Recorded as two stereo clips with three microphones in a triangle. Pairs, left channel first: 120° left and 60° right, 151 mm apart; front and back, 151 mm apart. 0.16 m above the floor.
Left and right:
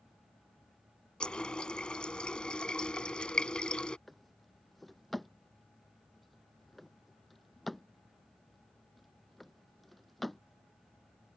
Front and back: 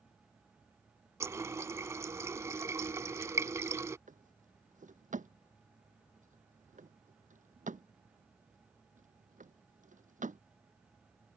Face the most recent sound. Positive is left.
turn(degrees=-150)